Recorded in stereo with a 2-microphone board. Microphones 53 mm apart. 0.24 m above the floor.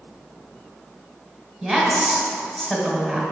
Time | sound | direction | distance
1.6 | a woman speaking | 5° left (ahead or behind) | 1.4 m